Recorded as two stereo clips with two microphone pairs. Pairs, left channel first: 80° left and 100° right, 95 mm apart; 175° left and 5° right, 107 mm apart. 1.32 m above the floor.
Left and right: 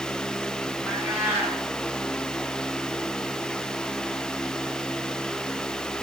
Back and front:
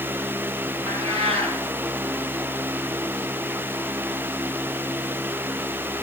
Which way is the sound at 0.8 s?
30° right.